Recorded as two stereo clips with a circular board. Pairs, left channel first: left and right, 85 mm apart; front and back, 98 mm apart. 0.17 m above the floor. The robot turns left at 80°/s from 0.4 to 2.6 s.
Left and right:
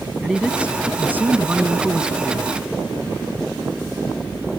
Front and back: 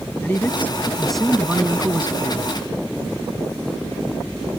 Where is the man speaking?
25° right; by 2.5 s 165° left.